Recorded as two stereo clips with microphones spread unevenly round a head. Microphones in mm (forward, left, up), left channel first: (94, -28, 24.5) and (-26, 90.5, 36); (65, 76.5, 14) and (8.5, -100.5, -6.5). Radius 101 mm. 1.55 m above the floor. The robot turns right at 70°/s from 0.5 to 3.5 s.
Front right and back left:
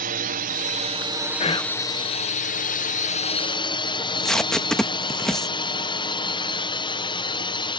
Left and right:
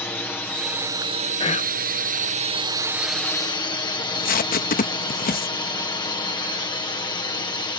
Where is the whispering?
5° left; by 1.8 s 35° left.